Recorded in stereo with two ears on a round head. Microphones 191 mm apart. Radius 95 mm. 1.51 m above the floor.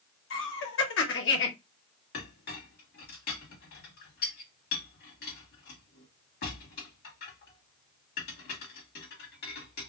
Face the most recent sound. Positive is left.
turn(degrees=55)  # may be behind; listen again after turning